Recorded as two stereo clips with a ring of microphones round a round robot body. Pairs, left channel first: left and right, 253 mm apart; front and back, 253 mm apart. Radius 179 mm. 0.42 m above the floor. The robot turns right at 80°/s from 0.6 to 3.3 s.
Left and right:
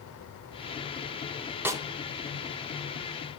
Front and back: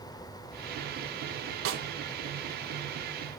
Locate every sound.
1.6 s a snare drum: 170° right, 1.1 m; by 1.8 s 155° right, 1.1 m